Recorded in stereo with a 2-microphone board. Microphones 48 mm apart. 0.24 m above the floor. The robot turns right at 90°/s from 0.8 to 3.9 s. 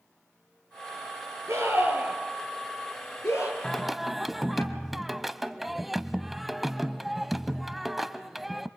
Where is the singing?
10° left (ahead or behind), 0.7 m; by 8.7 s 5° right (ahead or behind), 0.7 m.